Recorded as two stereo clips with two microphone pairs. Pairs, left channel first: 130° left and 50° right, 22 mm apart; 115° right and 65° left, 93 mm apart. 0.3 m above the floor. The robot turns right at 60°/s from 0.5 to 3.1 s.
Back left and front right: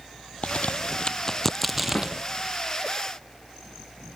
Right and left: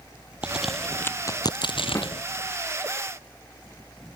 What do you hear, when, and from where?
0.4 s a crack: 145° left; by 2.2 s 110° right
1.9 s a snare drum: 175° right; by 2.1 s 160° right